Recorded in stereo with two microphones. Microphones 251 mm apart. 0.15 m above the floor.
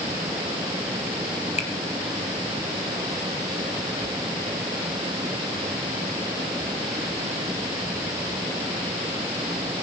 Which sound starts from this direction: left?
A finger snap, at 1.6 s.